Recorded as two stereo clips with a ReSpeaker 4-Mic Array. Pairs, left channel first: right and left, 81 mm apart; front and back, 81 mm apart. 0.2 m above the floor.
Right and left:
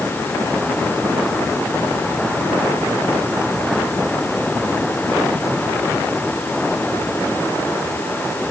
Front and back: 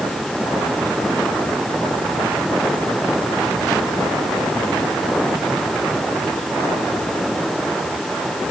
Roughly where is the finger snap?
No finger snap in this recording.